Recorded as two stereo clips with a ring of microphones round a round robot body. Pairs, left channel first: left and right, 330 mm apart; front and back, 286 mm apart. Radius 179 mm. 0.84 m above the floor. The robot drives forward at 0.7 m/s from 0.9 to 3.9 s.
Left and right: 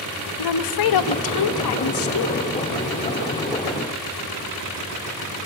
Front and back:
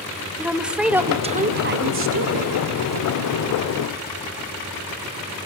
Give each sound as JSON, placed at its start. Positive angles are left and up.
{"t": 0.4, "sound": "a woman speaking", "azimuth_deg": 95, "distance_m": 0.8}